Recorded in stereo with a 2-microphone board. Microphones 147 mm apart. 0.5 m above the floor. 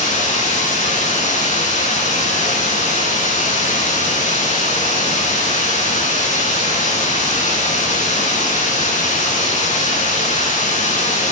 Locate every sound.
0.0 s running water: 50° left (ahead or behind), 4.5 m